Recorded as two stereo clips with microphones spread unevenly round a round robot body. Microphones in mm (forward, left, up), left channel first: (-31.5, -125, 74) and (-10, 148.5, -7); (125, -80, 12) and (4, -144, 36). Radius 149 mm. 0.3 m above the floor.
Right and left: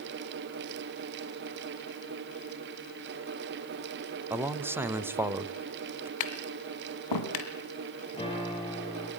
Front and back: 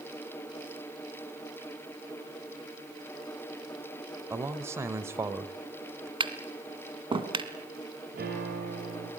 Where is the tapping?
95° right, 2.5 m.